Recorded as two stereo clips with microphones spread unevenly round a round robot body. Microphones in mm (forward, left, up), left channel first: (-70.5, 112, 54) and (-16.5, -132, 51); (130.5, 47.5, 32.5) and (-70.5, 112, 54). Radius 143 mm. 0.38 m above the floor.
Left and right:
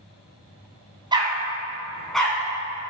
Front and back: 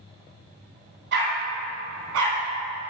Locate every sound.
1.1 s a dog barking: 150° right, 1.4 m; by 2.9 s straight behind, 2 m